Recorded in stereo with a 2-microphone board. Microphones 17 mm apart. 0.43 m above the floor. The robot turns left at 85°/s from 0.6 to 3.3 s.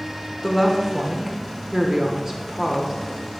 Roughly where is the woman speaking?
Centre.